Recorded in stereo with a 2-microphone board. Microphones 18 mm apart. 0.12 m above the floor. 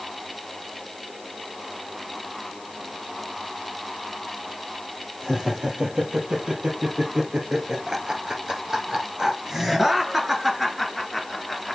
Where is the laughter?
65° right (ahead or behind), 4 m; by 11.8 s centre (ahead or behind), 2 m.